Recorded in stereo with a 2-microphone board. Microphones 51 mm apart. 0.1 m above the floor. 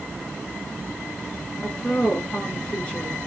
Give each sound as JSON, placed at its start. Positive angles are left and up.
{"t": 1.6, "sound": "a woman speaking", "side_deg": 20, "distance_m": 1.1}